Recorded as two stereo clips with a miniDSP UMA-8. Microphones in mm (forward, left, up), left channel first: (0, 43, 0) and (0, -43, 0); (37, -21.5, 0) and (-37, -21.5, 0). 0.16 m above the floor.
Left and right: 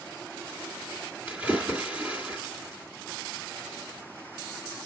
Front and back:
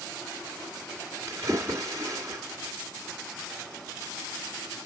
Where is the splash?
155° right, 2 m.